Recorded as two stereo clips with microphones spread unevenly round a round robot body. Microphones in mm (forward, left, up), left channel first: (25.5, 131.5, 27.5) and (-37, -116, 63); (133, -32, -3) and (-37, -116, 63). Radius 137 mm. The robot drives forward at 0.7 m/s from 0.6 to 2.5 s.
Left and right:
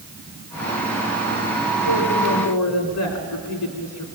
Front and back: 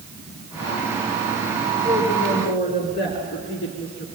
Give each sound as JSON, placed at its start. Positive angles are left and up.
{"t": 1.8, "sound": "a woman speaking", "azimuth_deg": 75, "distance_m": 3.5}